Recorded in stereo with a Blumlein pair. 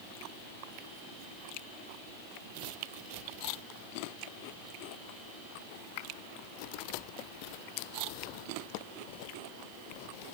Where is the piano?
No piano in this recording.